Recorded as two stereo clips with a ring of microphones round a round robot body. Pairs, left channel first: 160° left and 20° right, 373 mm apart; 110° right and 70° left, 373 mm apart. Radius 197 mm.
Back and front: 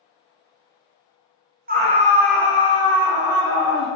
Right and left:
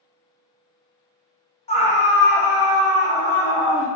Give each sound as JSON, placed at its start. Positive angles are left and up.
{"t": 1.7, "sound": "a scream", "azimuth_deg": -55, "distance_m": 1.1}